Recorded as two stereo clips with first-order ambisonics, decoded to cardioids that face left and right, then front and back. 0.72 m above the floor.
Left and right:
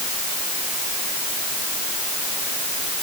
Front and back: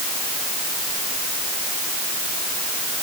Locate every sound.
Only background noise.